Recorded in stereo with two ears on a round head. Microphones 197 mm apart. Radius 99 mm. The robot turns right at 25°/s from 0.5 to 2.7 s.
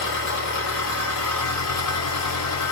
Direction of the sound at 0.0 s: 55° left.